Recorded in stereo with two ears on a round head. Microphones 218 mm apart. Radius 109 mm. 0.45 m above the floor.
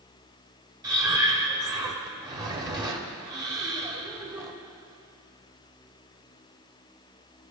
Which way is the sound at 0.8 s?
15° right (ahead or behind).